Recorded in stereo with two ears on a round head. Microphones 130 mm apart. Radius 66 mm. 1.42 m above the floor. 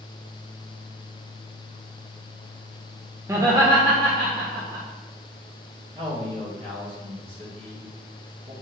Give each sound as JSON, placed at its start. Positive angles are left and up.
{"t": 3.3, "sound": "laughter", "side_deg": -20, "distance_m": 1.2}
{"t": 6.0, "sound": "a man speaking", "side_deg": -35, "distance_m": 2.5}